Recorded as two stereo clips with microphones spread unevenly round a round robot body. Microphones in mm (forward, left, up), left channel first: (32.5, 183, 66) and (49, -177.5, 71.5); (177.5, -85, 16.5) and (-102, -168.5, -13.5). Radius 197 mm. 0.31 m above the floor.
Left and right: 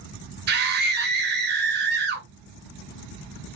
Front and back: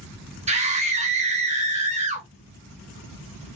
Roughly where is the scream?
Behind right.